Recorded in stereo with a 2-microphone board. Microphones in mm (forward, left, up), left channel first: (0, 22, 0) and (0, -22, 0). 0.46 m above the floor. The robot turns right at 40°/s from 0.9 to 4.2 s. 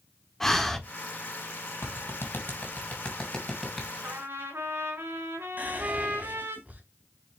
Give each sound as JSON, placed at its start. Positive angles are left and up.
{"t": 0.4, "sound": "breathing", "side_deg": 5, "distance_m": 1.3}
{"t": 1.8, "sound": "a clap", "side_deg": 70, "distance_m": 3.0}
{"t": 4.0, "sound": "a trumpet", "side_deg": -55, "distance_m": 3.5}
{"t": 5.6, "sound": "whispering", "side_deg": -35, "distance_m": 3.0}